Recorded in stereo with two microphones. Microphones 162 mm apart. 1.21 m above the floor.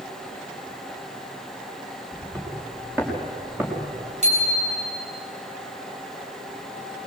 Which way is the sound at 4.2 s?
45° right (ahead or behind).